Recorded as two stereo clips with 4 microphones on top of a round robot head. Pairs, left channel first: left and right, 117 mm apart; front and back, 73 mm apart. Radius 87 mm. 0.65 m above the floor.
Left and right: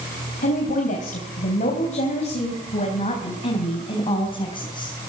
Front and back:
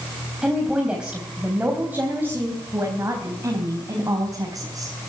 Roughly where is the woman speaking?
Left.